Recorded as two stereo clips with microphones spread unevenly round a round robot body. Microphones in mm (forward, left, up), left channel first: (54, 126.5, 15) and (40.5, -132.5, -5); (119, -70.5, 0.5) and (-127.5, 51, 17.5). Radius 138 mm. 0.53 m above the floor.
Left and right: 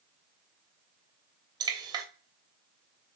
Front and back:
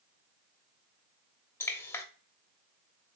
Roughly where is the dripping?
Right.